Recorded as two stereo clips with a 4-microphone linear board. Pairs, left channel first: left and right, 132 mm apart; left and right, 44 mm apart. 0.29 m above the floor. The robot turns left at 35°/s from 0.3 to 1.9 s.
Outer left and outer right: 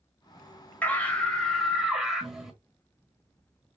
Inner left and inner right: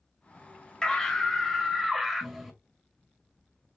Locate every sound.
0.8 s a scream: 15° left (ahead or behind), 1.6 m; by 2.5 s 5° right (ahead or behind), 1.6 m